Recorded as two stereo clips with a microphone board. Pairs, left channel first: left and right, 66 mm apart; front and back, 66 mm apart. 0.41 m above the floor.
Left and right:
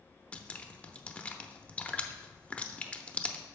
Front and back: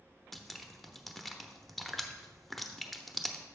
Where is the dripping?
85° left, 0.6 m.